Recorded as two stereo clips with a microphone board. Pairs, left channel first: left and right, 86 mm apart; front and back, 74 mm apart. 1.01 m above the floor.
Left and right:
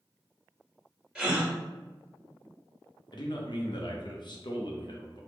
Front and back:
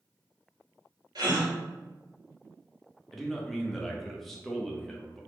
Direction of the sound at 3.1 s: 85° left.